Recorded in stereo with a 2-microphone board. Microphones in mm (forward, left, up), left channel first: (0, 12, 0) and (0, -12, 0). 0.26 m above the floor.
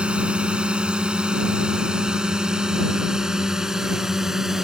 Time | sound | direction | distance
0.0 | a drone | 50° right (ahead or behind) | ?